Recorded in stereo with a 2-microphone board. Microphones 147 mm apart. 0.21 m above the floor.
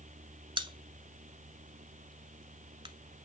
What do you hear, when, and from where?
0.6 s a pop: 35° right (ahead or behind), 0.9 m